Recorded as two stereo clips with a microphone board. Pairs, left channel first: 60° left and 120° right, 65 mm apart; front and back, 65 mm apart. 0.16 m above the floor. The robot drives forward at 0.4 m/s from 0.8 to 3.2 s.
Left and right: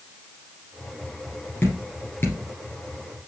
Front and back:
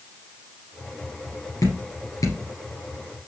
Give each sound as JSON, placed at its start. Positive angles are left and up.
{"t": 1.6, "sound": "dripping", "azimuth_deg": 10, "distance_m": 3.0}